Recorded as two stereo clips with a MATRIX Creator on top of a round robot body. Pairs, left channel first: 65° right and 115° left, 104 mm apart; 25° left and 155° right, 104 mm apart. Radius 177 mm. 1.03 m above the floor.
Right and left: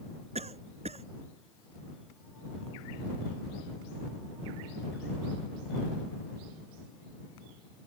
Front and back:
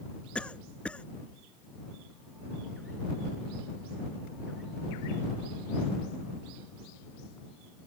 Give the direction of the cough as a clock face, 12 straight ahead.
9 o'clock.